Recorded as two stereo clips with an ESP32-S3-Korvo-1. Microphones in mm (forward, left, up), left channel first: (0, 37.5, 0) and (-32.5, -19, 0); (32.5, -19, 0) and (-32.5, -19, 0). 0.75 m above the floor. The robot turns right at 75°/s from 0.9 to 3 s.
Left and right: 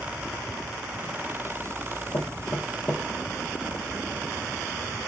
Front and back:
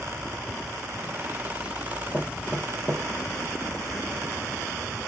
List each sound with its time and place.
2.1 s knocking: 80° left, 1.3 m; by 3.1 s 145° left, 1.3 m